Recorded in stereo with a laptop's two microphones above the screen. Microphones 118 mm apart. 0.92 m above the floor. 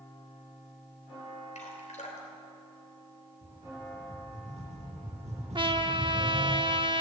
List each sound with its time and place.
1.6 s dripping: 80° left, 3 m
3.4 s a rattle: 65° right (ahead or behind), 8 m
5.5 s a trumpet: 45° right (ahead or behind), 0.7 m